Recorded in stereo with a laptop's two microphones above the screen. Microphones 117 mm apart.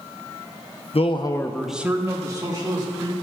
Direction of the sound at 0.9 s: 60° left (ahead or behind).